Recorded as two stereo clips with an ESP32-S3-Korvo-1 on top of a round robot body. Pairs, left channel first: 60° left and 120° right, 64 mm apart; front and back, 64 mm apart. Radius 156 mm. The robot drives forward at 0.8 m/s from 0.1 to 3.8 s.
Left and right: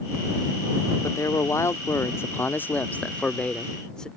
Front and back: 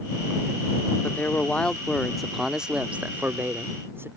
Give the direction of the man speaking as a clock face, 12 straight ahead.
10 o'clock.